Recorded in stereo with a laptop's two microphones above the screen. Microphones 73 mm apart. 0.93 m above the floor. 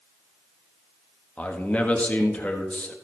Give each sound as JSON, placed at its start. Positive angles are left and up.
{"t": 1.4, "sound": "a man speaking", "side_deg": 20, "distance_m": 1.5}